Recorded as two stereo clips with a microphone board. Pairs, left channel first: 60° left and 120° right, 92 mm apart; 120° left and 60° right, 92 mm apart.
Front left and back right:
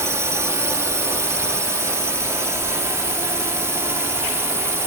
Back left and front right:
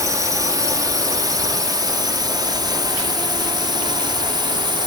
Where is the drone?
80° right; by 4.9 s 65° right.